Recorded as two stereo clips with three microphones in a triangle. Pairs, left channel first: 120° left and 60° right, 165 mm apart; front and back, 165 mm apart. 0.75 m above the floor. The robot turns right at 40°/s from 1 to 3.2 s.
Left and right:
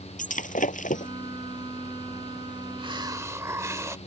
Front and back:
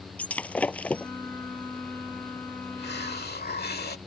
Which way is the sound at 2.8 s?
5° right.